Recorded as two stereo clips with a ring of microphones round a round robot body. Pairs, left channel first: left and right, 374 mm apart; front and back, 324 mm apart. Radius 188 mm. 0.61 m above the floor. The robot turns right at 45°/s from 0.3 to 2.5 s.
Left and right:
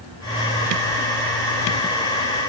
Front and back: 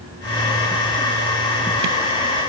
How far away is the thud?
No thud in this recording.